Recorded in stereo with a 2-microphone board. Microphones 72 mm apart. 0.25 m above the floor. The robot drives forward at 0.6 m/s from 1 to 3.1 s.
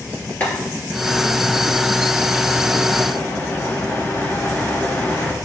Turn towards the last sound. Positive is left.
turn(degrees=35)  # may be behind; listen again after turning